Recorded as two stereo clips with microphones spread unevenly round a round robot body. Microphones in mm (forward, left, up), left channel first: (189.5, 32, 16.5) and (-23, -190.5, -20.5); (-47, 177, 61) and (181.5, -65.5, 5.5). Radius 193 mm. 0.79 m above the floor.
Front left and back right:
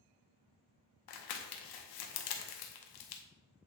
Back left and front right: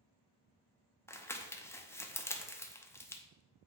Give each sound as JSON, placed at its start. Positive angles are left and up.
{"t": 1.1, "sound": "crumpling", "azimuth_deg": 45, "distance_m": 0.9}